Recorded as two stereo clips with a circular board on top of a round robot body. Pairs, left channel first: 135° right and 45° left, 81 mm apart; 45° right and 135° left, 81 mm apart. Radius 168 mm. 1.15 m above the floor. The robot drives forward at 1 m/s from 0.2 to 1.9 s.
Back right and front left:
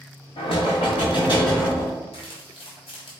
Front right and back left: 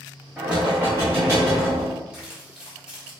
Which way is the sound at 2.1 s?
145° right.